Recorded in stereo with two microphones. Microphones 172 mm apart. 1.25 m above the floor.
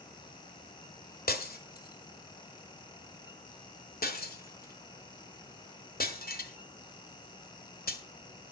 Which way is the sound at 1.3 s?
65° left (ahead or behind).